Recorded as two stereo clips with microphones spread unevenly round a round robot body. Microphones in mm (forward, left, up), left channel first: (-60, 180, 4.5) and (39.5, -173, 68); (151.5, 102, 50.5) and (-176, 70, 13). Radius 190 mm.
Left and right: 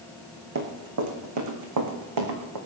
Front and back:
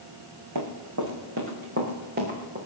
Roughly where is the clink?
No clink in this recording.